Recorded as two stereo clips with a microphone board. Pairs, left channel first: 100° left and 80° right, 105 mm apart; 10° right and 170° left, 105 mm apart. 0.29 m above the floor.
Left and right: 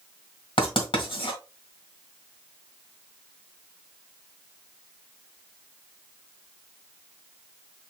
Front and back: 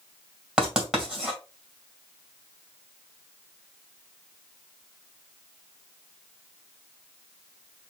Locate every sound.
0.6 s writing: 90° left, 2.5 m